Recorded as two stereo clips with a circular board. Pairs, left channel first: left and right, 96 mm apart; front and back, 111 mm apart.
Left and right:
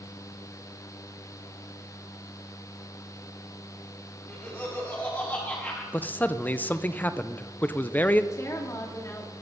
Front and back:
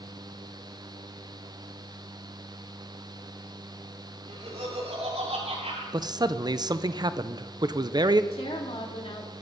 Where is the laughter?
160° left, 7.5 m.